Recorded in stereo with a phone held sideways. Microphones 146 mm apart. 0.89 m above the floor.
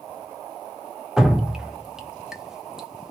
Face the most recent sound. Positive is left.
turn(degrees=-5)  # may be behind; listen again after turning